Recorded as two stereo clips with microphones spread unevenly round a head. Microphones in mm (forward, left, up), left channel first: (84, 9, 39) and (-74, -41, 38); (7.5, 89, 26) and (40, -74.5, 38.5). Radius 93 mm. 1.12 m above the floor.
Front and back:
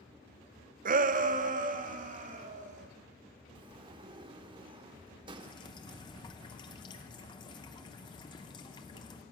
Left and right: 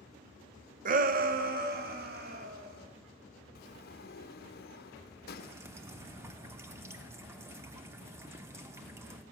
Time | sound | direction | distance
0.8 | a shout | 125° right | 0.6 m
3.5 | a sliding door | 135° left | 0.7 m
5.4 | dripping | 25° right | 0.7 m